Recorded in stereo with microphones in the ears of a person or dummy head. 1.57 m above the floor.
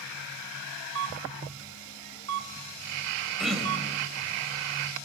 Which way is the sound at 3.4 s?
Centre (ahead or behind).